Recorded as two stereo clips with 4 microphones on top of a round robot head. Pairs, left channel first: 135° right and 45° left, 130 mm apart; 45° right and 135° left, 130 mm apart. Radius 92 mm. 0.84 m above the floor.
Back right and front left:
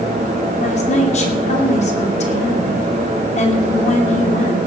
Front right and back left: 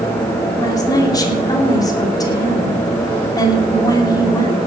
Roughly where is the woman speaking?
Right.